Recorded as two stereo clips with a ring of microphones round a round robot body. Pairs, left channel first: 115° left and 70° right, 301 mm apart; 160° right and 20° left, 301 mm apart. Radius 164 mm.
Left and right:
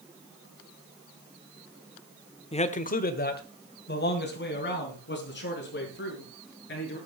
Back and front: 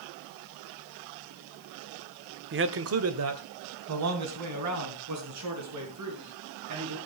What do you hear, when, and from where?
2.5 s a man speaking: 50° left, 1.0 m; by 7.0 s 55° left, 7 m